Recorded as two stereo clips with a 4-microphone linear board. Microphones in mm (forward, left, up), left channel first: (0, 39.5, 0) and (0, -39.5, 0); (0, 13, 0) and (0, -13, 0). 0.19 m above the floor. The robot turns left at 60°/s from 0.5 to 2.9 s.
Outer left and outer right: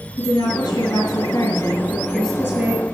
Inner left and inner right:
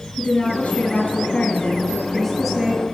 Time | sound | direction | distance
0.2 | a woman speaking | 115° left | 3.5 m